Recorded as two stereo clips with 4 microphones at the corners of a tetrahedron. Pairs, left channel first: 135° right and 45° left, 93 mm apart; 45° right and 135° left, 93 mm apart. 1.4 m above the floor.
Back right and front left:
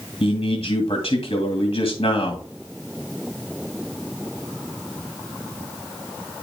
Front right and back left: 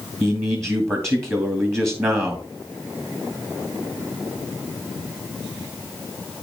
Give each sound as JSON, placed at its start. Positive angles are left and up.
{"t": 0.2, "sound": "a man speaking", "azimuth_deg": -165, "distance_m": 2.0}